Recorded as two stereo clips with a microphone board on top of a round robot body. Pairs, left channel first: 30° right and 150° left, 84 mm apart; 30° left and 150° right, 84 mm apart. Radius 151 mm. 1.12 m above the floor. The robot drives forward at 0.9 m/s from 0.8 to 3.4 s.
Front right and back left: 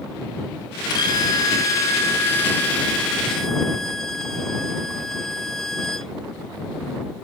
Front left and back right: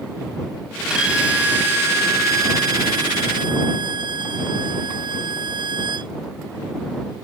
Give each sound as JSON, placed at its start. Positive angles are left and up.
{"t": 0.9, "sound": "a violin", "azimuth_deg": -70}